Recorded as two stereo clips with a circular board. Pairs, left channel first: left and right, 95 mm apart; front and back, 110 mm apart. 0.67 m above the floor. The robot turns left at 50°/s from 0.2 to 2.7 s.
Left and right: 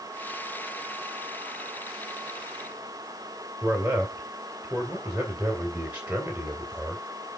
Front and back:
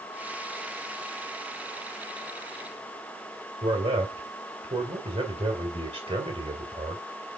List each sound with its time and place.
3.6 s a man speaking: 165° right, 2.5 m